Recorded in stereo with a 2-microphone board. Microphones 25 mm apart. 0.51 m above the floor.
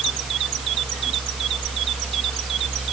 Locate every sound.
Only background noise.